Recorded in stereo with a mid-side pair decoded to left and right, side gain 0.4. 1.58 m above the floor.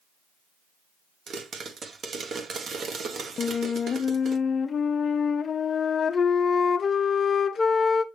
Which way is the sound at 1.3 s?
55° right.